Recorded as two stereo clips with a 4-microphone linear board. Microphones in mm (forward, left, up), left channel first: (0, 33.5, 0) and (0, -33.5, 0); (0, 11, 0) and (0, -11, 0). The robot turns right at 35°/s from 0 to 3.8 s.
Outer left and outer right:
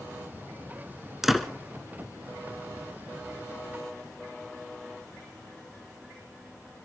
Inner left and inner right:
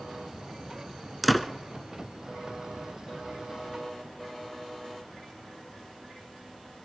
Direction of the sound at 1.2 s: 5° right (ahead or behind).